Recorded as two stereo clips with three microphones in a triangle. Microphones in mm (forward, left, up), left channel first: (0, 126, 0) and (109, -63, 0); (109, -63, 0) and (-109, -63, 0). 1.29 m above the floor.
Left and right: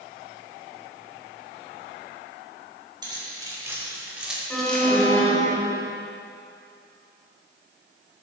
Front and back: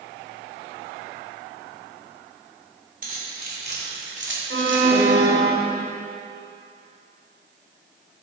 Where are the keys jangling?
130° right, 3.5 m; by 5.1 s 160° right, 2.0 m.